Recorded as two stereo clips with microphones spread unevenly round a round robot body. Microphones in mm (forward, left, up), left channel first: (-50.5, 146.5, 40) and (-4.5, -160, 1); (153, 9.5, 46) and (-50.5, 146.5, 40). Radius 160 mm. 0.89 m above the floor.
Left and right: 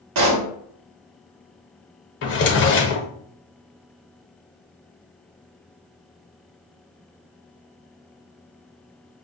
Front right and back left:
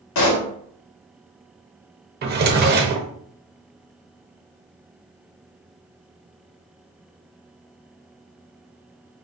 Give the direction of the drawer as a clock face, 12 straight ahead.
8 o'clock.